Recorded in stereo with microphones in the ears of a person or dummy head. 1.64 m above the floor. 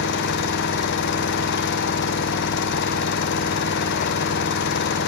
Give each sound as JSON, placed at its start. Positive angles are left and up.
{"t": 0.0, "sound": "an engine running", "side_deg": 60, "distance_m": 1.1}